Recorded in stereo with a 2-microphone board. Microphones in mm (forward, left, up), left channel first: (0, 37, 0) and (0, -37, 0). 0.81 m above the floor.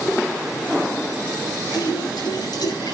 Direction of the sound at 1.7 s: 75° left (ahead or behind).